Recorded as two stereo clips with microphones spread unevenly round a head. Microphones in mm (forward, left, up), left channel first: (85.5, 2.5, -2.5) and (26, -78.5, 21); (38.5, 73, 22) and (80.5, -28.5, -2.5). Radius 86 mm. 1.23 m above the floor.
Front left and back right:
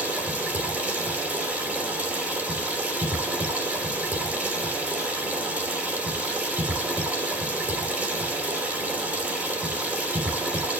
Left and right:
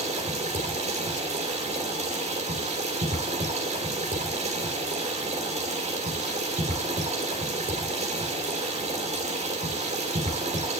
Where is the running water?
50° right, 4 m.